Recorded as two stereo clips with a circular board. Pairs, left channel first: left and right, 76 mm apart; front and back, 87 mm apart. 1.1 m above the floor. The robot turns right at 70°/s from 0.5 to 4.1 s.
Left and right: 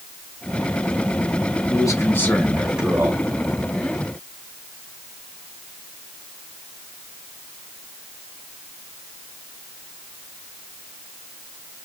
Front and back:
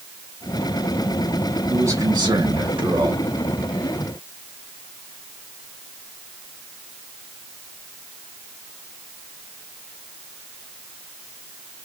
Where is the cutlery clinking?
No cutlery clinking in this recording.